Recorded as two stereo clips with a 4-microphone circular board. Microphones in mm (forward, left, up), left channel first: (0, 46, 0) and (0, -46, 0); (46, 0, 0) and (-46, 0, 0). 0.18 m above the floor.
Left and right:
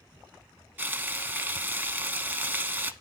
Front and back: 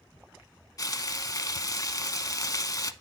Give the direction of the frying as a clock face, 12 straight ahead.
1 o'clock.